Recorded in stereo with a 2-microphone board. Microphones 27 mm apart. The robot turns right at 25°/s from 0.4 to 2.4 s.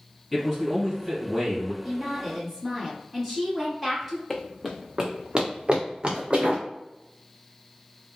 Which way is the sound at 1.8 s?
5° left (ahead or behind).